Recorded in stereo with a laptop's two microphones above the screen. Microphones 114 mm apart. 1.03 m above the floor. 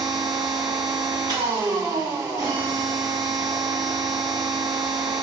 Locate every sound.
0.0 s a machine running: 35° right (ahead or behind), 0.8 m